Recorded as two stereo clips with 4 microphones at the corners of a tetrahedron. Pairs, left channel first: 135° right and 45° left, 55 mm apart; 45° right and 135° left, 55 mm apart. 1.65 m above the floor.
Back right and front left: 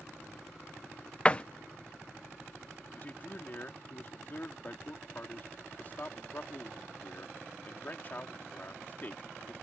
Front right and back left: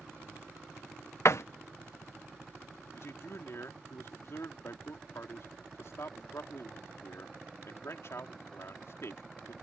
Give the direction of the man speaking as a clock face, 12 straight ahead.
3 o'clock.